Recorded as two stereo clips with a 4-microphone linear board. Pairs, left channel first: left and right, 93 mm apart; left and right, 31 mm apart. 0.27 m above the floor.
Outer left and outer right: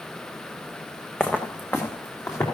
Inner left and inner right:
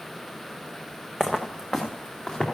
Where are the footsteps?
10° left (ahead or behind), 1.3 m; by 2.4 s 30° left (ahead or behind), 3 m.